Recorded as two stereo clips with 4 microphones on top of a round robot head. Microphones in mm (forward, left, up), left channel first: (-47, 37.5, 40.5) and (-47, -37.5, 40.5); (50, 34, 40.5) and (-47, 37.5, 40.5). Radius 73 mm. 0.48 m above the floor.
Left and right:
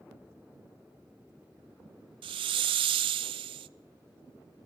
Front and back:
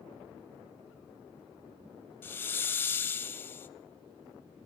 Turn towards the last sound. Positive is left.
turn(degrees=-75)